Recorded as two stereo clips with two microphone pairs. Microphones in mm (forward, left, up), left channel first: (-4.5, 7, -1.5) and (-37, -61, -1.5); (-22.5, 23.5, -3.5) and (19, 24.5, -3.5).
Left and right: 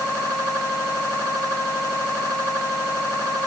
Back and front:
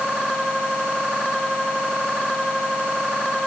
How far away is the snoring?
I don't hear snoring.